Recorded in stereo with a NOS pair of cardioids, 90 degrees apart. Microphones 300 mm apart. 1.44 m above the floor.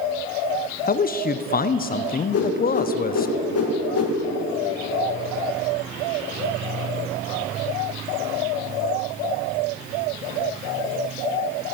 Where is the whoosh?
55° left, 2 m.